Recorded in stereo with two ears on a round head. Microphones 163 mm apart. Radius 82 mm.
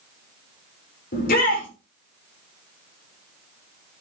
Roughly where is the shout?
Left.